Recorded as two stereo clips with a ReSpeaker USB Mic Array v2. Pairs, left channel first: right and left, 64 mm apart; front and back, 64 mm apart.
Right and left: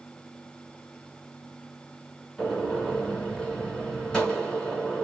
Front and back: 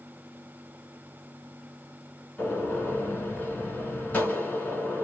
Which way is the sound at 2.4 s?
30° right.